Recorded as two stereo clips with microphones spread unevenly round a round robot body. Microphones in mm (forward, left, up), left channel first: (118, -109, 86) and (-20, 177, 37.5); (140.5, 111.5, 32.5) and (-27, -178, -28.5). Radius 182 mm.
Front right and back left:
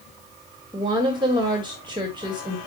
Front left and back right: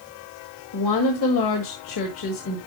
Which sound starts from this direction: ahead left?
A woman speaking, at 0.7 s.